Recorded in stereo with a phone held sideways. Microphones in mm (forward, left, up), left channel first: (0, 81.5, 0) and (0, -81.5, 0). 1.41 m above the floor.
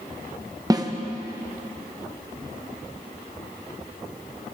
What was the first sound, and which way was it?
A snare drum, 25° right (ahead or behind).